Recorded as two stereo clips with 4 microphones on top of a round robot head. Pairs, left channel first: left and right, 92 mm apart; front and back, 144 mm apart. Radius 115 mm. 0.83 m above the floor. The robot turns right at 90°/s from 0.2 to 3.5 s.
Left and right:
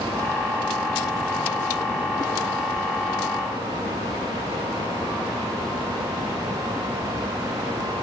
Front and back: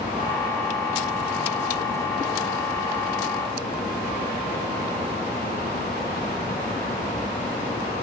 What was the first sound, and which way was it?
Only background noise.